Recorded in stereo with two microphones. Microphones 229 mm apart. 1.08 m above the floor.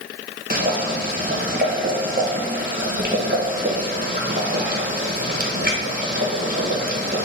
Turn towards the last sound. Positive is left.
turn(degrees=-40)  # may be behind; listen again after turning